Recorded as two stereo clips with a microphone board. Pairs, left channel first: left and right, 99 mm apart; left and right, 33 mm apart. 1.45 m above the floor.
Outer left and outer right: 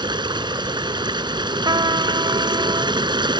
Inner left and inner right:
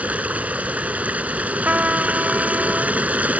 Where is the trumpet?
50° right (ahead or behind).